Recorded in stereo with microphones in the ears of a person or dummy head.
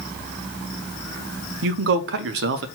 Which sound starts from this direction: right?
A man speaking, at 1.6 s.